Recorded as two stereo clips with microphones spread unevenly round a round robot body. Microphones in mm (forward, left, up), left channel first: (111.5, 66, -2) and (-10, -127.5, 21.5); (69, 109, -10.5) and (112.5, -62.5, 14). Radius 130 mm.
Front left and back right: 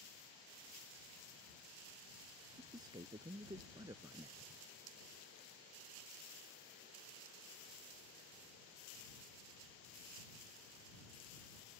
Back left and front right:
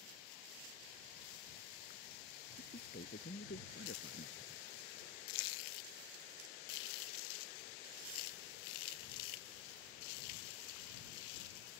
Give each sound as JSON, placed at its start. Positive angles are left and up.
{"t": 2.6, "sound": "a man speaking", "azimuth_deg": 160}